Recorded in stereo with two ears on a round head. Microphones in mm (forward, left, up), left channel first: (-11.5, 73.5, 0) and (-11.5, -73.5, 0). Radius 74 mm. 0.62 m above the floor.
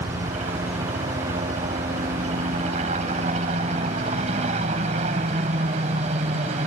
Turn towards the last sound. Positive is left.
turn(degrees=-45)  # may be behind; listen again after turning